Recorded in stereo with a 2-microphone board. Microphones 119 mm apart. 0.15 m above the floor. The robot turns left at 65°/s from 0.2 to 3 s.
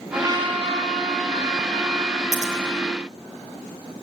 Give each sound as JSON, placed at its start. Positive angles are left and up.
{"t": 0.1, "sound": "a trumpet", "azimuth_deg": -25, "distance_m": 8.0}
{"t": 2.3, "sound": "scissors", "side_deg": -80, "distance_m": 4.0}